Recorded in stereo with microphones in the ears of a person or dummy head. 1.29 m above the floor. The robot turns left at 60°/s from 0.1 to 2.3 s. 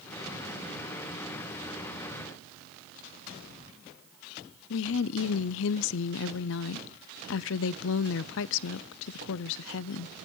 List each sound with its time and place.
4.7 s a woman speaking: 65° left (ahead or behind), 0.5 m